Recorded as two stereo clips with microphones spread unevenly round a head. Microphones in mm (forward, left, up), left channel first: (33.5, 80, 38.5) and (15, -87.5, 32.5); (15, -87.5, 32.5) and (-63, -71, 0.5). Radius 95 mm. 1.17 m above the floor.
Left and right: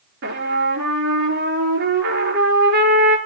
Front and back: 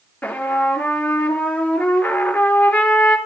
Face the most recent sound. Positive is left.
turn(degrees=-80)